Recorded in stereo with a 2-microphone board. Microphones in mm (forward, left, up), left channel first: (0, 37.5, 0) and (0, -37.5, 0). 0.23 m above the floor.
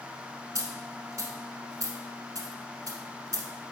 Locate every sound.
0.6 s a dropped coin: 50° right (ahead or behind), 1.0 m